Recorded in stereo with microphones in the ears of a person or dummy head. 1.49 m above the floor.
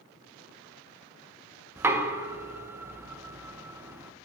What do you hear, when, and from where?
1.8 s knocking: 15° right (ahead or behind), 0.5 m